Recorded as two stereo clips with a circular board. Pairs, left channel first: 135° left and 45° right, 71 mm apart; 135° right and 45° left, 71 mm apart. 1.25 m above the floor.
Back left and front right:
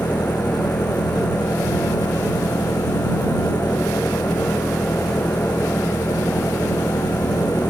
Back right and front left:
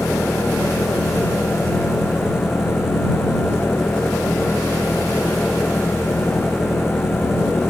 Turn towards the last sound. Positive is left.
turn(degrees=125)